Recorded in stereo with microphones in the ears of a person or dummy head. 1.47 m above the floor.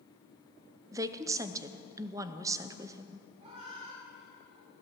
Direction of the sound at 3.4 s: 35° right (ahead or behind).